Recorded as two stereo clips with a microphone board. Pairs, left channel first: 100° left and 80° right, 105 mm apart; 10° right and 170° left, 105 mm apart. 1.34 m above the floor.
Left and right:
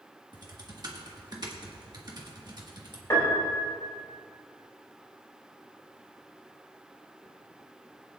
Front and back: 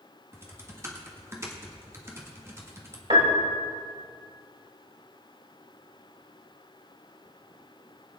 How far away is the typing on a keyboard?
About 1.6 m.